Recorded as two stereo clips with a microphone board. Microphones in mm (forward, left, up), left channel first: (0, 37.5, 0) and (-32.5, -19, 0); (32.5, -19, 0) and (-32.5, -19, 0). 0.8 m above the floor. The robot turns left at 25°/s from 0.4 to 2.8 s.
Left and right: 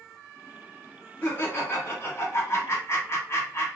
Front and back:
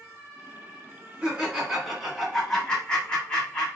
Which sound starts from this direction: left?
Laughter, at 1.2 s.